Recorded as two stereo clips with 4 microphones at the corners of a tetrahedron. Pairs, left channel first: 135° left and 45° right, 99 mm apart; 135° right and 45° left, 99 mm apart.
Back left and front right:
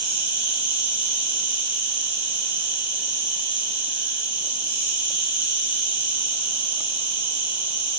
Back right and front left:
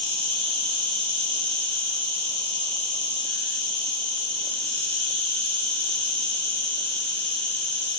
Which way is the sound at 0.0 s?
30° left.